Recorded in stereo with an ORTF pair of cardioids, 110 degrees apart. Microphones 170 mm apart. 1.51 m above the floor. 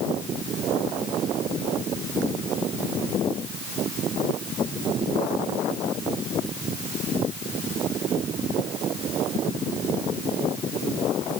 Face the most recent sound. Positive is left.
No sound to turn to.